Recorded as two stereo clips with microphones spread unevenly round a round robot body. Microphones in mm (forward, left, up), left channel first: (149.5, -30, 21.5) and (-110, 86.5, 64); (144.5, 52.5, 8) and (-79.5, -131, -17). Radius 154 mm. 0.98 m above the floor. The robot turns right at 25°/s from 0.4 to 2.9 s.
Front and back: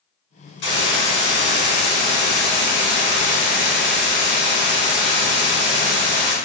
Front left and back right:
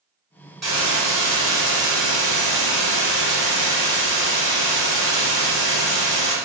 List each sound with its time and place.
0.6 s a hiss: 55° right, 1.3 m; by 6.3 s 5° left, 1.3 m